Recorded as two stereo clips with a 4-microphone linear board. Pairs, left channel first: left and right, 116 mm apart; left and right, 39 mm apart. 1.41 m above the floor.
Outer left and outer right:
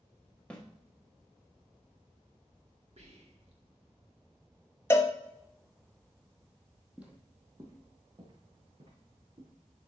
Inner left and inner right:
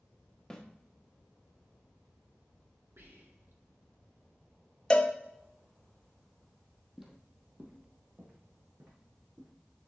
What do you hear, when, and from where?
0.5 s a snare drum: 10° left (ahead or behind), 1.5 m
3.0 s whispering: 70° right (ahead or behind), 2 m
4.9 s a cowbell: 25° left (ahead or behind), 0.9 m
7.0 s footsteps: 10° right (ahead or behind), 2 m; by 9.5 s 60° right (ahead or behind), 4.5 m